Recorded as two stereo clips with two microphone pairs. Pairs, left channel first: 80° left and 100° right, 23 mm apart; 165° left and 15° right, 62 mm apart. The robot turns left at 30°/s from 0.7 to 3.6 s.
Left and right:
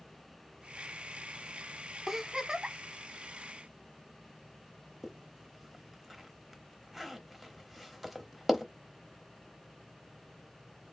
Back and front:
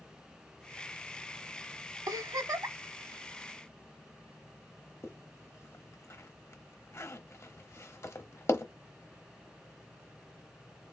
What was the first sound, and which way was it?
A giggle, 20° right.